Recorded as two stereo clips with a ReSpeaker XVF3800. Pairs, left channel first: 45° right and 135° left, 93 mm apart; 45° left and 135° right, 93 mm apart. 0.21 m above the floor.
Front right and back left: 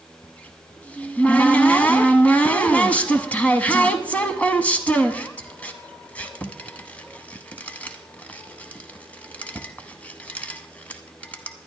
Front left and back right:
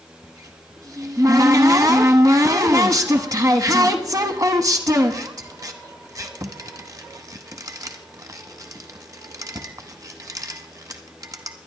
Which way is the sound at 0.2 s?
110° right.